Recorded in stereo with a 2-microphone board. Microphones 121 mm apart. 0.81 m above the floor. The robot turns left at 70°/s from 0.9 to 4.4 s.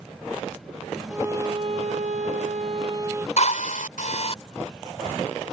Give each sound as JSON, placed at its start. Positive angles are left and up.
{"t": 1.1, "sound": "a violin", "azimuth_deg": -10}
{"t": 3.4, "sound": "a drill", "azimuth_deg": 120}